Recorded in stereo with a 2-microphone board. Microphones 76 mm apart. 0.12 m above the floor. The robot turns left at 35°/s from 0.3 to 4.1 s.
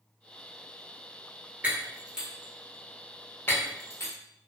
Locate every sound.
1.6 s breaking glass: 25° right (ahead or behind), 1.1 m; by 4.1 s 45° left (ahead or behind), 1.1 m